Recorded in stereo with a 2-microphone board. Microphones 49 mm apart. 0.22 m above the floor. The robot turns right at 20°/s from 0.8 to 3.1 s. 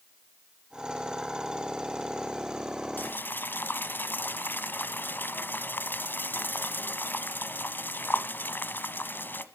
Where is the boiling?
45° left (ahead or behind), 1.3 m.